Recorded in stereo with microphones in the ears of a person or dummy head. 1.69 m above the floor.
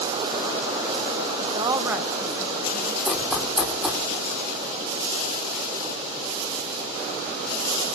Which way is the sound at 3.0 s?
Centre (ahead or behind).